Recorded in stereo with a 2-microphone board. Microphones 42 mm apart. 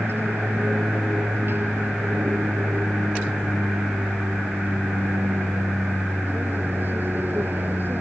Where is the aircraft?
55° right (ahead or behind); by 8.0 s 50° right (ahead or behind).